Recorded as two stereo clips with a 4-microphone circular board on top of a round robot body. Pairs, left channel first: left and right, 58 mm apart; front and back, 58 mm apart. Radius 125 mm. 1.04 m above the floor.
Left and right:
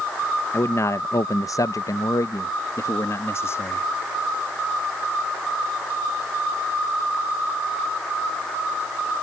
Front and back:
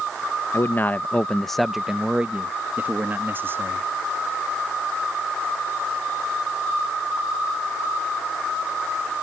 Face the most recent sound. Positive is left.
turn(degrees=135)